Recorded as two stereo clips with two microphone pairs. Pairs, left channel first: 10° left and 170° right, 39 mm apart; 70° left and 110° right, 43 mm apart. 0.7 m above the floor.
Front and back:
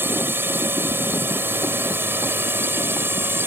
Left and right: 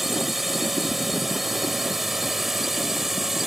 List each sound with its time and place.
0.0 s a drone: 165° left; by 3.5 s 170° left